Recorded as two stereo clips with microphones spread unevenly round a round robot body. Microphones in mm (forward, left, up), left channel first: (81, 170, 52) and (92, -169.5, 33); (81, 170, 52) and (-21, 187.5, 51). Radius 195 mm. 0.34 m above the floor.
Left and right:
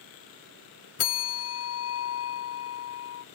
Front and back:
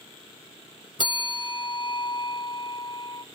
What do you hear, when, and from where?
1.0 s a bell: 40° left, 0.8 m